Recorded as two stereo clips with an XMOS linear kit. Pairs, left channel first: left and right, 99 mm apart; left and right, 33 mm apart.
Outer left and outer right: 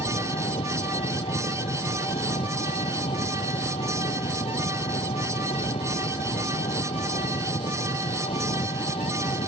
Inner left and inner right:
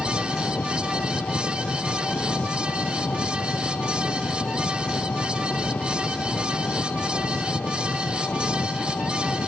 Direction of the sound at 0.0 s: 85° left.